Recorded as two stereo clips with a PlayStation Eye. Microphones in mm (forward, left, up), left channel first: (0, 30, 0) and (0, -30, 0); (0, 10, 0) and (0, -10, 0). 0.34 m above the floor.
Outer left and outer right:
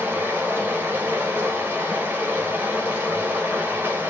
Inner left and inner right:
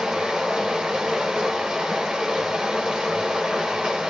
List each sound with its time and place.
0.0 s running water: 35° right (ahead or behind), 1.2 m